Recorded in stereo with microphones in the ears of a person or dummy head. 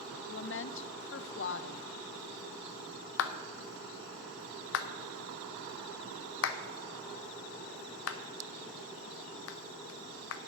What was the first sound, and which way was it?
A woman speaking, 55° left (ahead or behind).